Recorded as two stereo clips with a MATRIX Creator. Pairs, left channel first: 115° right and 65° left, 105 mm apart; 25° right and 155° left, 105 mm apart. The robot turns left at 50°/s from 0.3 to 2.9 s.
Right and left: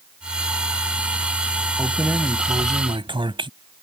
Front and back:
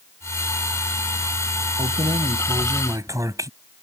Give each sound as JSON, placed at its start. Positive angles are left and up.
{"t": 1.8, "sound": "keys jangling", "azimuth_deg": 155}